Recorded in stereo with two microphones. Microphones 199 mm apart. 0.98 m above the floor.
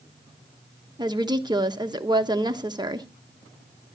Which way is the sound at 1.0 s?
20° right (ahead or behind).